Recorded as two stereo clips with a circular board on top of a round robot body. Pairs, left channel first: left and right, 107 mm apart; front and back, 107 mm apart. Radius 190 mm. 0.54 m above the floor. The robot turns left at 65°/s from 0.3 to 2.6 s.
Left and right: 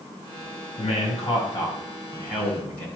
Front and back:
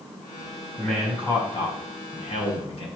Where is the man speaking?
95° left, 5.5 m; by 2.9 s 25° right, 5.5 m.